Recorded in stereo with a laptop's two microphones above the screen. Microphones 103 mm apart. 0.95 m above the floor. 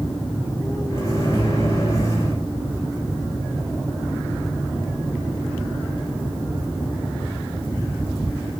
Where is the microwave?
35° left (ahead or behind), 4.5 m.